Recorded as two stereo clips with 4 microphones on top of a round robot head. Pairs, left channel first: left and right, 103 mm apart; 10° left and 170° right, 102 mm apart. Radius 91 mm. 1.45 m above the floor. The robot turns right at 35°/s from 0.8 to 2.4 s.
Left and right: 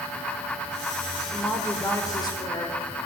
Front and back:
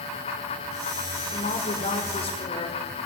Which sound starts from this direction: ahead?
A woman speaking, at 1.3 s.